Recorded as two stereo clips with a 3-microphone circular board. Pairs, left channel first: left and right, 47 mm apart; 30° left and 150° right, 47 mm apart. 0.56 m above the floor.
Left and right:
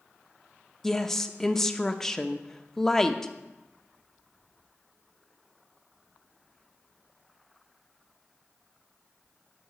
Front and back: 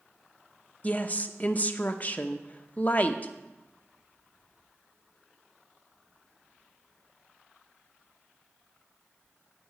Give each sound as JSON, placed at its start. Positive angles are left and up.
{"t": 0.8, "sound": "a woman speaking", "azimuth_deg": 15, "distance_m": 0.7}